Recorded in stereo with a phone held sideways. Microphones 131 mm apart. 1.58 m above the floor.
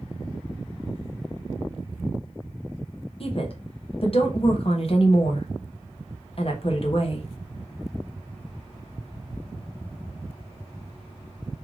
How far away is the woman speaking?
About 0.9 m.